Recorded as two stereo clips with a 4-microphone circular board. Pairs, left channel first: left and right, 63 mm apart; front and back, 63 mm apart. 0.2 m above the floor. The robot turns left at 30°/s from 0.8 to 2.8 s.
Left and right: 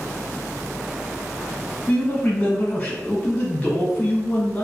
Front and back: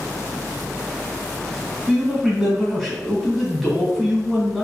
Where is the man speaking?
110° left, 1.5 m; by 4.6 s 80° left, 1.5 m.